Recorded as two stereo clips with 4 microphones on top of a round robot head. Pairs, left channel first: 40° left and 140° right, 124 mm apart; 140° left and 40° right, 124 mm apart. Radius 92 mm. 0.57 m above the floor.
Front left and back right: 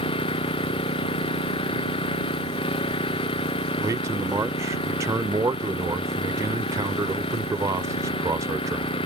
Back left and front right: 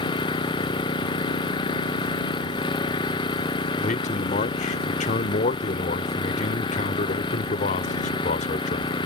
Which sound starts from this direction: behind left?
A man speaking, at 3.8 s.